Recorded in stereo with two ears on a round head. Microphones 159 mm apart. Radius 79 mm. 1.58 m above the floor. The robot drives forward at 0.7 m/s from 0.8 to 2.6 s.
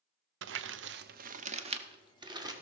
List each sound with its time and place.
0.4 s crumpling: 75° right (ahead or behind), 0.6 m; by 2.5 s 20° right (ahead or behind), 1.5 m